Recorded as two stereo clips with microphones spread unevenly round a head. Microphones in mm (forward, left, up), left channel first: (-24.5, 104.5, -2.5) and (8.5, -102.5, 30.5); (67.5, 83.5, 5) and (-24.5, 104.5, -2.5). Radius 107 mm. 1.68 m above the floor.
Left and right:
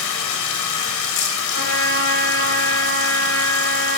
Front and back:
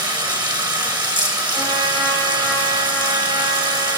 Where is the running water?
125° left, 1.6 m.